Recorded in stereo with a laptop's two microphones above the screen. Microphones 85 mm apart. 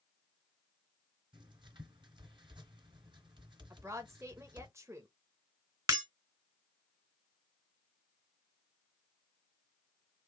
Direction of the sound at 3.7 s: 35° right (ahead or behind).